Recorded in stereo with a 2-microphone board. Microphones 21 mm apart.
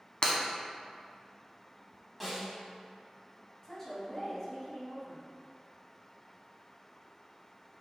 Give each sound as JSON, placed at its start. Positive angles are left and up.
{"t": 0.2, "sound": "breaking glass", "side_deg": 45, "distance_m": 0.5}
{"t": 2.2, "sound": "a snare drum", "side_deg": -5, "distance_m": 1.0}
{"t": 3.6, "sound": "a woman speaking", "side_deg": 25, "distance_m": 1.2}